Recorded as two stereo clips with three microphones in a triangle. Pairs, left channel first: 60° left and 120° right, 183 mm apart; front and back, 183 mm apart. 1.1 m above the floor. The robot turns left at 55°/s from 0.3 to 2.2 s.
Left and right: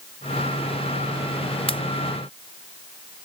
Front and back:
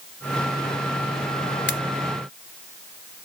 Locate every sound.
1.7 s a pop: straight ahead; by 1.8 s 5° right